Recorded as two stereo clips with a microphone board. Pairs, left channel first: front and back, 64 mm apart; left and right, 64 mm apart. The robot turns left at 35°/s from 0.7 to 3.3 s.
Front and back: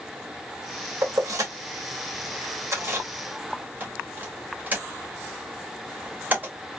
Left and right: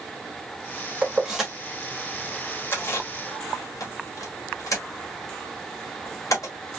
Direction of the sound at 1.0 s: 160° right.